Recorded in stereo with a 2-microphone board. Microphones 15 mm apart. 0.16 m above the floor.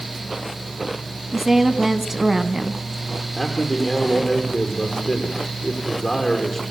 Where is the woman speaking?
20° right (ahead or behind), 1.5 m.